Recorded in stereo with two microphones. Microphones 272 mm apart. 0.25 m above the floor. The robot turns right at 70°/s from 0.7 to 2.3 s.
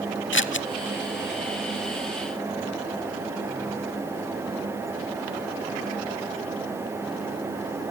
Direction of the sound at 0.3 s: 45° left (ahead or behind).